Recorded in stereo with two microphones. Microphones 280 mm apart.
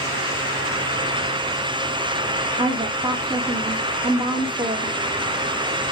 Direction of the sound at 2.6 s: 15° right (ahead or behind).